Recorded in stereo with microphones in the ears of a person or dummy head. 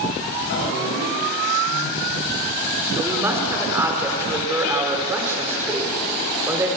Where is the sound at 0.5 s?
60° left (ahead or behind), 8.5 m.